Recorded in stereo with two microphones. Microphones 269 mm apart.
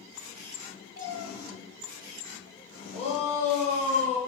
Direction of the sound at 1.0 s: 65° left (ahead or behind).